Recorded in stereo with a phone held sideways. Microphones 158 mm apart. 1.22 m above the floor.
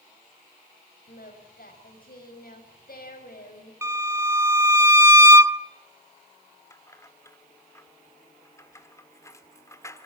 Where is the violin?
20° right (ahead or behind), 0.7 m.